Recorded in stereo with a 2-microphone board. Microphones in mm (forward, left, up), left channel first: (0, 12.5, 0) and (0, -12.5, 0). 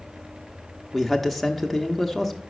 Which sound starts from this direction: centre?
A man speaking, at 0.9 s.